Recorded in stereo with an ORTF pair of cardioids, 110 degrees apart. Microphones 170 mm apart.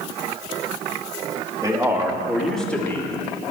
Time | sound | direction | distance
1.6 | a man speaking | 20° right | 3 m